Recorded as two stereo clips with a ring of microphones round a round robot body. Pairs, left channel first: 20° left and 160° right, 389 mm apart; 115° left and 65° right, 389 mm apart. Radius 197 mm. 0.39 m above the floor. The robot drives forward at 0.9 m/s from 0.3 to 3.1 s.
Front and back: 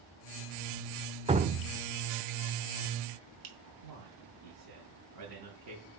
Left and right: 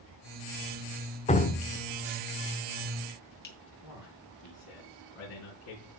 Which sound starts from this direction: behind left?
Dripping, at 1.3 s.